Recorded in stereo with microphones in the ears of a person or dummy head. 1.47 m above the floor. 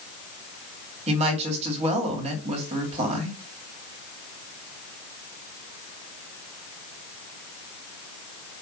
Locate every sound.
1.1 s a woman speaking: 35° right (ahead or behind), 2.5 m